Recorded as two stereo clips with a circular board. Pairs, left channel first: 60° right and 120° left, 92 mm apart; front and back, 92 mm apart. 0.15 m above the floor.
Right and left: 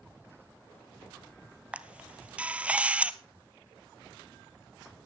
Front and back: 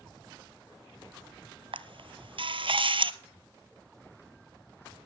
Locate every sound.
1.7 s a camera shutter: 165° right, 0.6 m